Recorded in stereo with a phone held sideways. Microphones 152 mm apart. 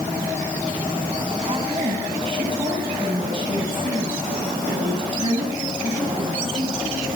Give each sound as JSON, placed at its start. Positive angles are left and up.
{"t": 1.5, "sound": "a woman speaking", "side_deg": -35, "distance_m": 6.5}